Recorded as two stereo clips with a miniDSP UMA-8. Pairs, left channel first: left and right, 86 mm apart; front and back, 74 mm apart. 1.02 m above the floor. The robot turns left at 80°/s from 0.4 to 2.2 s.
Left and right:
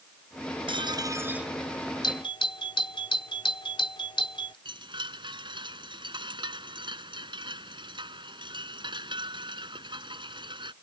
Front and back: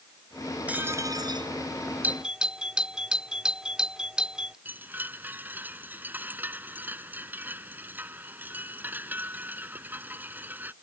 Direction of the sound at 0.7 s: 105° right.